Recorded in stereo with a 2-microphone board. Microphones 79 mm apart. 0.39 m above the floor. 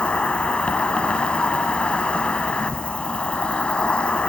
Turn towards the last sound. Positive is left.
turn(degrees=15)  # may be behind; listen again after turning